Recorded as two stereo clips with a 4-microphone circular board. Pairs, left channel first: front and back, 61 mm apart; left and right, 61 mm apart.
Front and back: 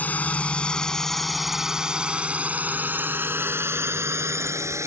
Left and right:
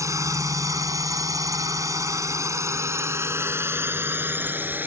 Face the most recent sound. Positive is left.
turn(degrees=-145)